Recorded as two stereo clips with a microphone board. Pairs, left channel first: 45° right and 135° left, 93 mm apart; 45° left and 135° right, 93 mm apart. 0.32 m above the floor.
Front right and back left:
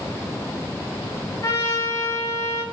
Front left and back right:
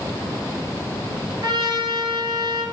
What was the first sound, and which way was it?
A trumpet, 95° right.